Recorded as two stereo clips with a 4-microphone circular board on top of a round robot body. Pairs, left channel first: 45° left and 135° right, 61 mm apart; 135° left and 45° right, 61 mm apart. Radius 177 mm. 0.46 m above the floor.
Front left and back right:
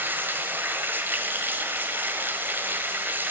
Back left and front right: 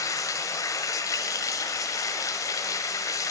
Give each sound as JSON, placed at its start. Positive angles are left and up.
{"t": 0.0, "sound": "running water", "azimuth_deg": 165, "distance_m": 1.2}